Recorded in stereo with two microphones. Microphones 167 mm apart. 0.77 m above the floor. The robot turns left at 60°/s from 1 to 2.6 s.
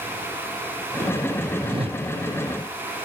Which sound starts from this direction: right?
A whoosh, at 1.6 s.